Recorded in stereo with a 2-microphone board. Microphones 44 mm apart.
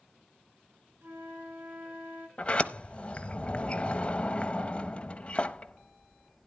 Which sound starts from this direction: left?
A sliding door, at 2.4 s.